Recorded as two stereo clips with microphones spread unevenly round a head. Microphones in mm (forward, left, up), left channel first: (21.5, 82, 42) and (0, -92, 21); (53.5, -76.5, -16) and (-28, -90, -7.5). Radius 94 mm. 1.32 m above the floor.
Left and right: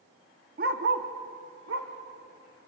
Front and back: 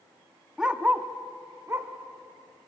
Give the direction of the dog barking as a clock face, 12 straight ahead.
3 o'clock.